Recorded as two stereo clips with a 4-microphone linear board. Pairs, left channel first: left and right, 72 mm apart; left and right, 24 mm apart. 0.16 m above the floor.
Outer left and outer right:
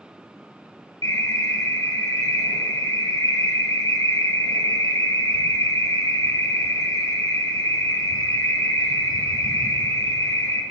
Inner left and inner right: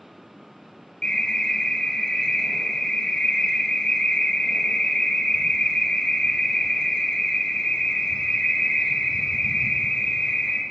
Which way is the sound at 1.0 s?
55° left (ahead or behind).